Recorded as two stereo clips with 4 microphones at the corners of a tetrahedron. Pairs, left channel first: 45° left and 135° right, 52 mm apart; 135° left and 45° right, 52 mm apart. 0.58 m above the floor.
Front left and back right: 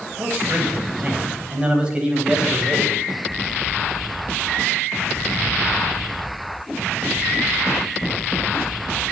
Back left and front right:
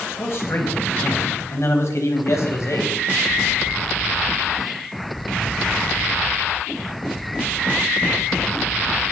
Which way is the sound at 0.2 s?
170° left.